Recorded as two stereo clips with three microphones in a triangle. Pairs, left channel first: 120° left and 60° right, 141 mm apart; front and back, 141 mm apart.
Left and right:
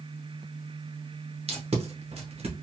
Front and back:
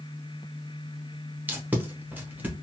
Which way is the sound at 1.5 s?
100° right.